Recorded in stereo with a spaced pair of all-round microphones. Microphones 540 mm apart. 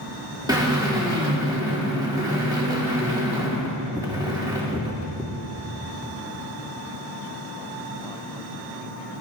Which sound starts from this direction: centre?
A drill, at 0.5 s.